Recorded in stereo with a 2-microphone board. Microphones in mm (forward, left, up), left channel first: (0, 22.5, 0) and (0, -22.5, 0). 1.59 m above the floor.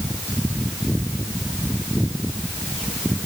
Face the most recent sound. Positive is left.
No sound to turn to.